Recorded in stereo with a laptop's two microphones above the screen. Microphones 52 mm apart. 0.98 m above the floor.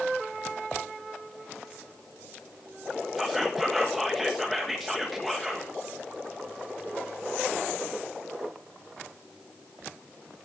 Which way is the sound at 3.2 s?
Centre (ahead or behind).